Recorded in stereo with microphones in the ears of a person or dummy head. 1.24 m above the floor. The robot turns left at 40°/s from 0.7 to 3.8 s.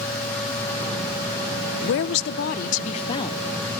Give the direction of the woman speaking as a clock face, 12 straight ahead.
9 o'clock.